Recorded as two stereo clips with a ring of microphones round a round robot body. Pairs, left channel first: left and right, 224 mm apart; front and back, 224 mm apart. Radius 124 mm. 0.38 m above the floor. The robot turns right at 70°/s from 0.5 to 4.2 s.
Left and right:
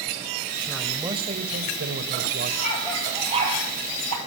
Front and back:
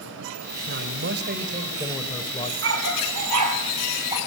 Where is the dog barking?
150° left, 3.5 m; by 4.2 s 100° right, 3.5 m.